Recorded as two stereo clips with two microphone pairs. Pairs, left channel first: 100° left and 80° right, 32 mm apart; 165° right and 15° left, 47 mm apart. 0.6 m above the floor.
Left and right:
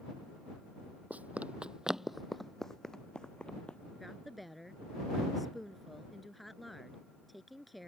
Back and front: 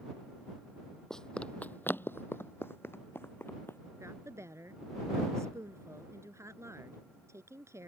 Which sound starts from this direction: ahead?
A woman speaking, at 4.0 s.